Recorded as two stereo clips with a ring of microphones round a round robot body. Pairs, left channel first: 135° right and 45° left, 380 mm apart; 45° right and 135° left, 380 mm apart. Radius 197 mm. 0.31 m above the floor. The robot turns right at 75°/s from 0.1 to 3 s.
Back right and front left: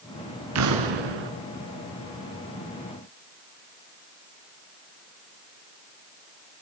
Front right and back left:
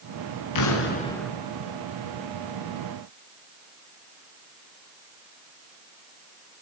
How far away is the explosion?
About 3.5 m.